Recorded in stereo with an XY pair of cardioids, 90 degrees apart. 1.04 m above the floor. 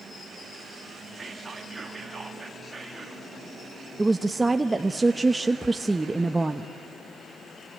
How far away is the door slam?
No door slam in this recording.